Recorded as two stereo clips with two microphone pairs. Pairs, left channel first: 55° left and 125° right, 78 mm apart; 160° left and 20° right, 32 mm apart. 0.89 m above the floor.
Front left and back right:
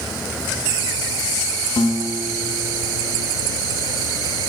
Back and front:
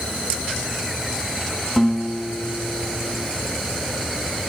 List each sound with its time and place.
1.8 s a guitar: 75° left, 1.3 m